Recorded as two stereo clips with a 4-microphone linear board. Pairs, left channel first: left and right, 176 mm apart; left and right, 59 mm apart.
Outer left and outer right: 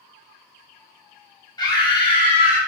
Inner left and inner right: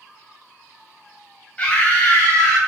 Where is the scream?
20° left (ahead or behind), 0.9 m; by 2.6 s 25° left (ahead or behind), 1.0 m.